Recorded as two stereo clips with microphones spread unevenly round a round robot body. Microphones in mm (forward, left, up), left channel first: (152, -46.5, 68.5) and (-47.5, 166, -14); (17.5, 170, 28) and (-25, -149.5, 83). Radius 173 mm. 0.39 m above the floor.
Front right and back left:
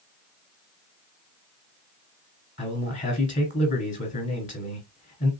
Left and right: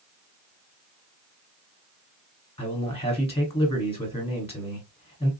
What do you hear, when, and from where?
2.6 s a man speaking: 30° left, 1.9 m